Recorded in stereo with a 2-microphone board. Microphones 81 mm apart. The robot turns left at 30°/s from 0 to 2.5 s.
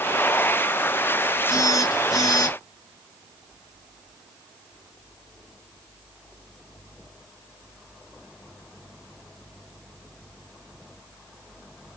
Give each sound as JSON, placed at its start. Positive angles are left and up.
{"t": 1.5, "sound": "a phone buzzing", "azimuth_deg": 130, "distance_m": 1.7}